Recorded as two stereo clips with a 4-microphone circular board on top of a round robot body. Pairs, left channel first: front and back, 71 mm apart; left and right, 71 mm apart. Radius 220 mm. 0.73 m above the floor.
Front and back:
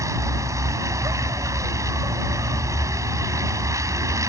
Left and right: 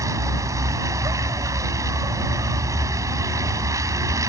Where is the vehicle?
135° right.